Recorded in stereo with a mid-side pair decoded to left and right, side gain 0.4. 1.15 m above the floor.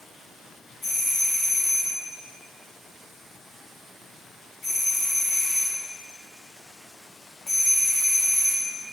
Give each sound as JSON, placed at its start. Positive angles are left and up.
{"t": 0.8, "sound": "a doorbell", "azimuth_deg": 50, "distance_m": 3.5}